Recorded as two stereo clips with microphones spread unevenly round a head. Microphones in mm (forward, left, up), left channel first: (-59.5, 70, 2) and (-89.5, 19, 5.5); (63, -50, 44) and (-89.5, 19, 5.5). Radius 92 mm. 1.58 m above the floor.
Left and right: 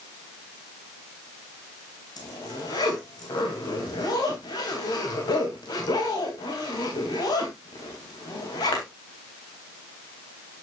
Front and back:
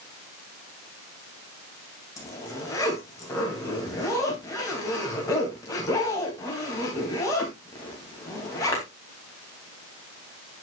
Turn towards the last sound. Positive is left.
turn(degrees=50)